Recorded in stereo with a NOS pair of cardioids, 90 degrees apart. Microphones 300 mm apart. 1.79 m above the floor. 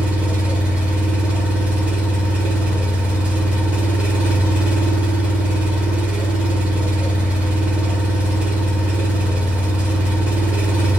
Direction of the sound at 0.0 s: 5° right.